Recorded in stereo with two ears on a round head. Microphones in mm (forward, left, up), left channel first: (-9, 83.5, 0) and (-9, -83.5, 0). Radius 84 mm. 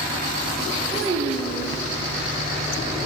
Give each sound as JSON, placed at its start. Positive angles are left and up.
{"t": 0.9, "sound": "a child speaking", "side_deg": -70, "distance_m": 1.0}